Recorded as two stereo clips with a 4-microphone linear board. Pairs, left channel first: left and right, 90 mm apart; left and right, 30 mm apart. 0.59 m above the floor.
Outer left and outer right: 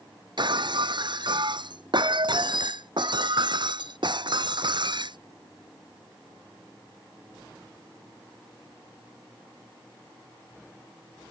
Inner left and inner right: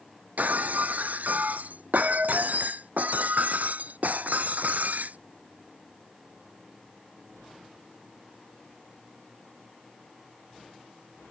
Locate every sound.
0.4 s breaking glass: 60° right (ahead or behind)